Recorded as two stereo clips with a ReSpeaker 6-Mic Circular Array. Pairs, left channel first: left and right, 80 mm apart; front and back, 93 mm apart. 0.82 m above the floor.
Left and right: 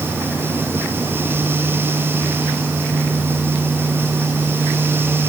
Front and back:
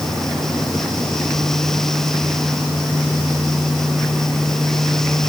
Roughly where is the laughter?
I don't hear laughter.